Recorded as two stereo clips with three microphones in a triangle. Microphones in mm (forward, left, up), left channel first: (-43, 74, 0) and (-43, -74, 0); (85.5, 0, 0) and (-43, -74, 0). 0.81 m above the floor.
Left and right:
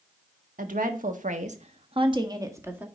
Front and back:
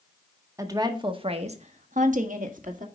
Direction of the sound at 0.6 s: 85° right.